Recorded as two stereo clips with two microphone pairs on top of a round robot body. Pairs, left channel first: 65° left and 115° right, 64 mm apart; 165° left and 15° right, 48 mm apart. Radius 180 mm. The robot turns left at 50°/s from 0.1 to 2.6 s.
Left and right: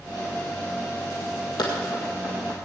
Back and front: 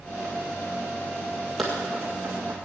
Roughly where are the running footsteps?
Left.